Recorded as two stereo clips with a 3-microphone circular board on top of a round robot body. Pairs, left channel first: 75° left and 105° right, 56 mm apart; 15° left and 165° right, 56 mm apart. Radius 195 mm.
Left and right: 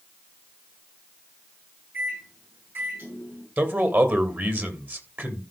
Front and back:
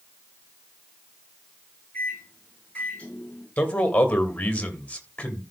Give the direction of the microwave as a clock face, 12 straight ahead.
2 o'clock.